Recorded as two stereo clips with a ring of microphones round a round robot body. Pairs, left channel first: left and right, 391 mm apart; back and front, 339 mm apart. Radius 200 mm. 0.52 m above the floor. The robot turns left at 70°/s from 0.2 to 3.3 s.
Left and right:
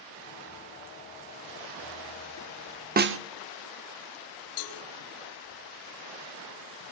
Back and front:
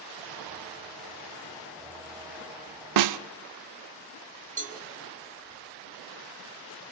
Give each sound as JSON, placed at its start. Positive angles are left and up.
{"t": 3.0, "sound": "a snare drum", "azimuth_deg": -25, "distance_m": 0.9}
{"t": 4.6, "sound": "a cowbell", "azimuth_deg": 65, "distance_m": 5.0}